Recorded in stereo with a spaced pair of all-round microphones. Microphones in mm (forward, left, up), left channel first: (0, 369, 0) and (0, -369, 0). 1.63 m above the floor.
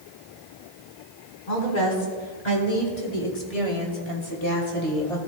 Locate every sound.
1.5 s a woman speaking: 80° left, 4.5 m; by 5.3 s centre (ahead or behind), 3 m